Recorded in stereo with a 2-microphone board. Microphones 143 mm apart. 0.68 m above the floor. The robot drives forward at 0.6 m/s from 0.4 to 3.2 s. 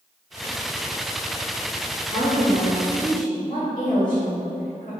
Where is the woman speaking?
75° left (ahead or behind), 1.9 m; by 4.9 s 60° left (ahead or behind), 2 m.